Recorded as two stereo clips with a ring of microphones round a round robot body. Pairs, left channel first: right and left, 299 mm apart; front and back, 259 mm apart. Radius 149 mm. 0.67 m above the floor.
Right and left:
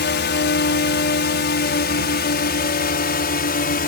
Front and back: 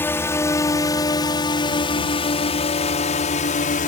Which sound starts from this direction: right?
A drone, at 0.0 s.